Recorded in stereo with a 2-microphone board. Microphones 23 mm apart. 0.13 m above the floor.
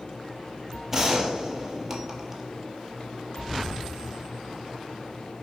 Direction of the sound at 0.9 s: 20° right (ahead or behind).